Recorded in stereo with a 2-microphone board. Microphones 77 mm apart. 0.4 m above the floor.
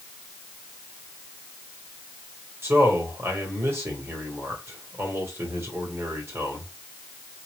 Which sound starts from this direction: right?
A man speaking, at 2.6 s.